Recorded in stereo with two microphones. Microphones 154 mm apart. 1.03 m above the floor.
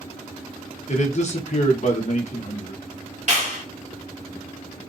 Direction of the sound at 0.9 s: 50° left (ahead or behind).